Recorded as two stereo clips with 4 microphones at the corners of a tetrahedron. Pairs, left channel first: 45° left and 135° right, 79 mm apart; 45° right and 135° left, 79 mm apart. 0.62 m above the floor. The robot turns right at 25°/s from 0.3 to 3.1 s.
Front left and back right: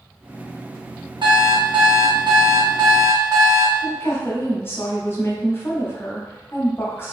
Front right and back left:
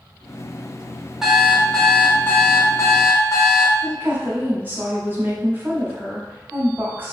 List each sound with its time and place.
1.2 s an alarm clock: 140° right, 0.7 m; by 3.7 s 95° right, 0.7 m
3.8 s a woman speaking: 85° left, 0.7 m